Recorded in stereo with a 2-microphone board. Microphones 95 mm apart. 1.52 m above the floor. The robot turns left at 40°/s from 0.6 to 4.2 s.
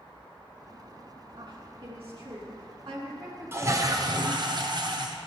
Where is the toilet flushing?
25° right (ahead or behind), 0.8 m; by 5.2 s 50° right (ahead or behind), 0.8 m.